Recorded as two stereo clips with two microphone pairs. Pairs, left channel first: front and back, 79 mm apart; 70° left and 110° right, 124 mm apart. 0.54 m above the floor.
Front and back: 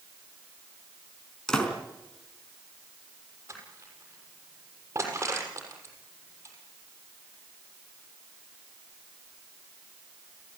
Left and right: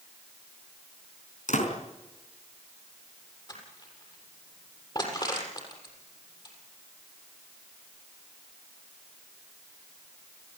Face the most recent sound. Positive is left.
turn(degrees=125)